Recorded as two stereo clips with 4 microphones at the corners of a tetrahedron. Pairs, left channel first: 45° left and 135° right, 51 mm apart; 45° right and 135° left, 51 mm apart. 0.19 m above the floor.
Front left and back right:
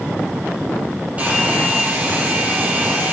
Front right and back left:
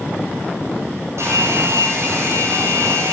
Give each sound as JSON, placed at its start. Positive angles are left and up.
{"t": 1.2, "sound": "a hair dryer", "azimuth_deg": 165, "distance_m": 4.5}